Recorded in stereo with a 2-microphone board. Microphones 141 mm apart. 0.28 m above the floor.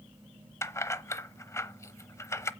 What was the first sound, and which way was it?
Keys jangling, 20° left (ahead or behind).